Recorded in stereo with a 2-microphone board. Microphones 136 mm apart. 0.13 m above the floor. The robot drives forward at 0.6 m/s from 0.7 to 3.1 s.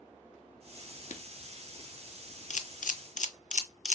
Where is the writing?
65° left (ahead or behind), 0.6 m.